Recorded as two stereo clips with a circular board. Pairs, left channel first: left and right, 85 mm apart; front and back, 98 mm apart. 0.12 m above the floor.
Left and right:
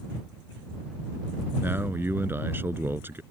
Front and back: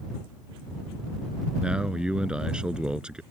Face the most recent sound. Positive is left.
turn(degrees=-110)